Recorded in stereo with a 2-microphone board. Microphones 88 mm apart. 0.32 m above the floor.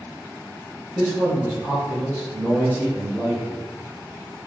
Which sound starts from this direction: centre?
A man speaking, at 0.9 s.